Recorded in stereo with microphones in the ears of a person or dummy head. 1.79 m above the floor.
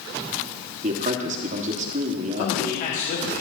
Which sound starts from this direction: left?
A man speaking, at 2.4 s.